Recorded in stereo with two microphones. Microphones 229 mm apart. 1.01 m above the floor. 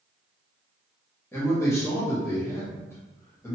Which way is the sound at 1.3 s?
10° left (ahead or behind).